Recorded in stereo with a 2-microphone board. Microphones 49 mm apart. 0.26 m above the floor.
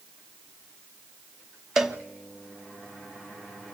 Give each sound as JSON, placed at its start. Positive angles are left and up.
{"t": 1.8, "sound": "a cowbell", "side_deg": -10, "distance_m": 0.8}